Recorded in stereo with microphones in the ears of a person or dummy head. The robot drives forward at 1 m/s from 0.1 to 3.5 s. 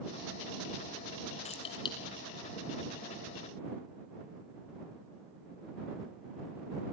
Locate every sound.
1.4 s keys jangling: 30° left (ahead or behind), 1.4 m; by 2.0 s 25° left (ahead or behind), 1.8 m